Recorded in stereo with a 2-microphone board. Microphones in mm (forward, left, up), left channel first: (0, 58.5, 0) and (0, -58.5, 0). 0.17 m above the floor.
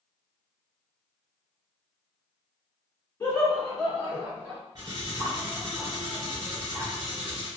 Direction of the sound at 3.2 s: 20° left (ahead or behind).